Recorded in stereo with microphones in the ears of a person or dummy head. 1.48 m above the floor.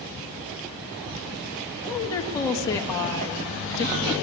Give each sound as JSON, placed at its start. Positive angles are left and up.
{"t": 1.9, "sound": "a woman speaking", "side_deg": 15, "distance_m": 2.0}